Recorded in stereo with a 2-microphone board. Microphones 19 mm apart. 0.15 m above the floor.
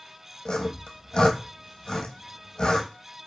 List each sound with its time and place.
0.5 s sawing: 55° left (ahead or behind), 0.8 m